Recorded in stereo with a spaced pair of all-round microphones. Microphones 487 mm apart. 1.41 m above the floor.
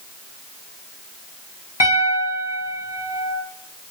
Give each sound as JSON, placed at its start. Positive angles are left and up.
{"t": 1.8, "sound": "a piano", "side_deg": 55, "distance_m": 1.0}